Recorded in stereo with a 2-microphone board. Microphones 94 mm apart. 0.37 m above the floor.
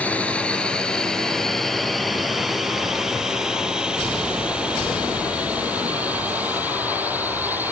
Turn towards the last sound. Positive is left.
turn(degrees=-20)  # may be behind; listen again after turning